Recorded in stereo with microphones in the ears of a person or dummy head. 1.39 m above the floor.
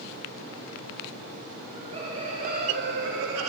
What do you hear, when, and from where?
1.6 s laughter: 25° right (ahead or behind), 2.0 m; by 3.5 s 85° right, 1.2 m